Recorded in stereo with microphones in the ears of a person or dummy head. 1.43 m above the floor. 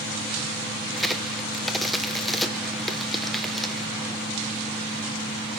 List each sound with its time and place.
0.9 s a crack: centre (ahead or behind), 0.8 m